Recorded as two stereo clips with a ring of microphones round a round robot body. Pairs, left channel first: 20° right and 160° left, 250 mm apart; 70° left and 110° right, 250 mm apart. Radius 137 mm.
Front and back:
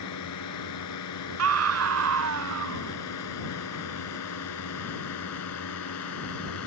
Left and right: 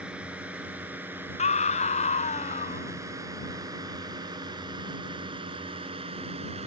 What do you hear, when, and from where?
0.0 s a drone: 25° right; by 6.7 s 45° right
1.4 s a scream: 130° left